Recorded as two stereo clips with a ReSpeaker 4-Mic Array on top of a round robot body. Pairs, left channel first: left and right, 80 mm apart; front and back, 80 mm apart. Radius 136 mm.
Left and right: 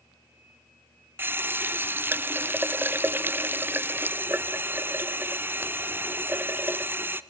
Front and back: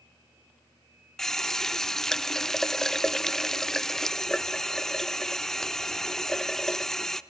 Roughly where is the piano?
No piano in this recording.